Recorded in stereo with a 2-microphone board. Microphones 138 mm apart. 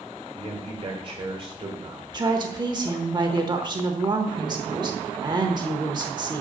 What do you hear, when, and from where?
0.3 s a man speaking: 35° right (ahead or behind), 1.6 m
2.1 s a woman speaking: 30° right (ahead or behind), 1.0 m